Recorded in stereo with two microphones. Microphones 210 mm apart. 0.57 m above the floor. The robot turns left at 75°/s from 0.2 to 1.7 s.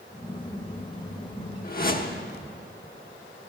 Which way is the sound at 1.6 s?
40° left (ahead or behind).